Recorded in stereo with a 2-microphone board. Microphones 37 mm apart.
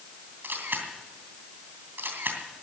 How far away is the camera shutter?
About 2.5 m.